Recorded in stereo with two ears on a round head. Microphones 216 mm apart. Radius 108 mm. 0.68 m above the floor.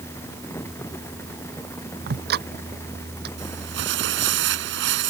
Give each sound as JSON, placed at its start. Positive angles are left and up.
{"t": 2.1, "sound": "ticking", "side_deg": -45}
{"t": 3.4, "sound": "crumpling", "side_deg": -50}